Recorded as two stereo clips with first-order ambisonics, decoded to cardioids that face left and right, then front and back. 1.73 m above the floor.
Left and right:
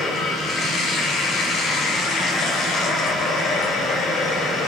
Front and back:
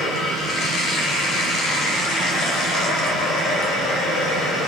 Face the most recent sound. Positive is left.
turn(degrees=35)